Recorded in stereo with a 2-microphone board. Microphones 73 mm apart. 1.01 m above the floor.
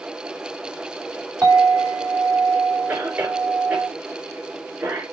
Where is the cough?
30° right (ahead or behind), 4 m.